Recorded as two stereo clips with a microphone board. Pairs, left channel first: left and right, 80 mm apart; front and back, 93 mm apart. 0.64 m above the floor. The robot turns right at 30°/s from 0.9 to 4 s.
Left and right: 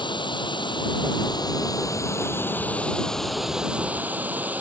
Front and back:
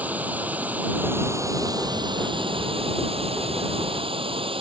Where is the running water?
105° left; by 4.6 s 160° right.